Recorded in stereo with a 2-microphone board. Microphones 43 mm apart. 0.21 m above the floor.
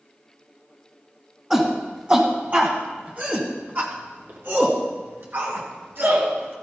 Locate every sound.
1.5 s a shout: 20° right (ahead or behind), 1.7 m; by 6.5 s 55° right (ahead or behind), 3 m